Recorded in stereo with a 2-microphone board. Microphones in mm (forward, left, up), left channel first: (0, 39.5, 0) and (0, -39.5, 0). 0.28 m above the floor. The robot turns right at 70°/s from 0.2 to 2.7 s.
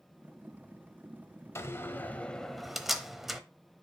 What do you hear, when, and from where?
1.6 s a door slam: 35° left (ahead or behind), 0.8 m; by 3.4 s centre (ahead or behind), 0.8 m